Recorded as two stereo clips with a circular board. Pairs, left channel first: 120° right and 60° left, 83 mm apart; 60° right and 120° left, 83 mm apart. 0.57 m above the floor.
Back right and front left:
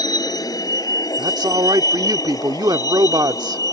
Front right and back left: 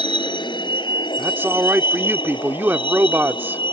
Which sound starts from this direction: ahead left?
A man speaking, at 1.2 s.